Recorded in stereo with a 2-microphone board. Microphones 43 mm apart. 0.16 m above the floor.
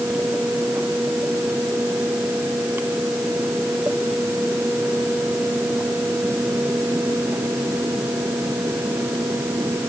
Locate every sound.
Only background noise.